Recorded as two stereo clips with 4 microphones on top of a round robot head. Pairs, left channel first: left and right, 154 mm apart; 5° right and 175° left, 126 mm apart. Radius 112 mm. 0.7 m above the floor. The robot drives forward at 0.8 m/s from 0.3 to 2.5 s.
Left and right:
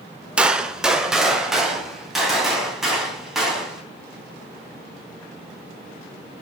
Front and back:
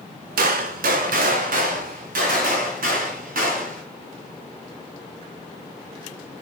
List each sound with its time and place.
0.4 s a gunshot: 175° right, 0.8 m; by 3.8 s straight behind, 2.5 m